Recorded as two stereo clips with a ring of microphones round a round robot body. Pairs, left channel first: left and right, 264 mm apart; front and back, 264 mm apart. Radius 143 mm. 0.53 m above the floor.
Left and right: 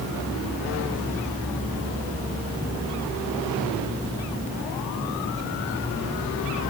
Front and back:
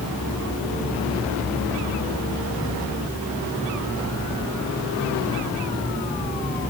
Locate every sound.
Only background noise.